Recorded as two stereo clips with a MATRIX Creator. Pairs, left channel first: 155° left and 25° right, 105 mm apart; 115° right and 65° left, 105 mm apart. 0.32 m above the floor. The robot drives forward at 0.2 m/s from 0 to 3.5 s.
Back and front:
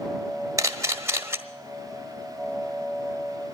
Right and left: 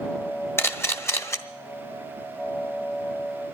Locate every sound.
0.6 s a camera shutter: 60° right, 1.2 m; by 1.4 s 70° right, 1.2 m